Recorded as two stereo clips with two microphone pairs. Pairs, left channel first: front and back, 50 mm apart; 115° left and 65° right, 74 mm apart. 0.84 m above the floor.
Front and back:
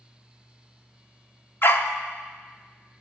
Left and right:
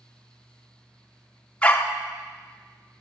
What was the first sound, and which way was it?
A dog barking, 35° left.